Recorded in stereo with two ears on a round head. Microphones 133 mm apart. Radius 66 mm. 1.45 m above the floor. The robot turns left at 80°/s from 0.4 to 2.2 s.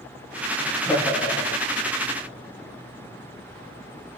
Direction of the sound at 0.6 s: 175° right.